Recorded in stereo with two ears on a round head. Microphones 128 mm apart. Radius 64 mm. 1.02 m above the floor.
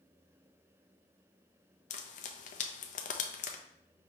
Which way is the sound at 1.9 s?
55° left (ahead or behind).